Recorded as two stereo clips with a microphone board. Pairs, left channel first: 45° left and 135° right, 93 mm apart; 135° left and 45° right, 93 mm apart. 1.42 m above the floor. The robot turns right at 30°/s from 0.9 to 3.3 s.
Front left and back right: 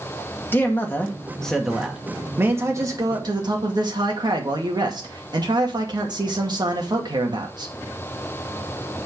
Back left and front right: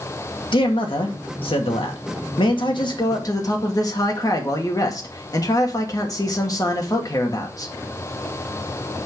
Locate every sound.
0.5 s a man speaking: 110° left, 2 m; by 7.7 s 175° right, 2 m